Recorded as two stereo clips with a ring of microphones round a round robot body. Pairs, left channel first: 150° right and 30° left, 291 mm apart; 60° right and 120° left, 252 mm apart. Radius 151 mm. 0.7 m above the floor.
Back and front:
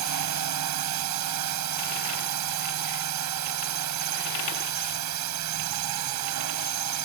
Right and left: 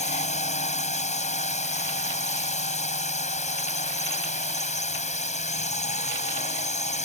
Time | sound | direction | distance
0.0 | a drone | straight ahead | ?